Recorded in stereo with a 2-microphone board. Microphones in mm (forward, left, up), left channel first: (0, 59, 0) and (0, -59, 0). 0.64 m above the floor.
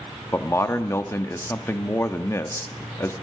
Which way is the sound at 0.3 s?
25° left (ahead or behind).